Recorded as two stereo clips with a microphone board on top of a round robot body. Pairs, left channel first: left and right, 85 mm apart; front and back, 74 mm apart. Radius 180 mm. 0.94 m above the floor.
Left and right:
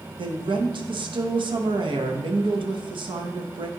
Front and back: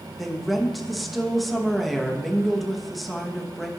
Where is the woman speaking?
90° right, 1.0 m.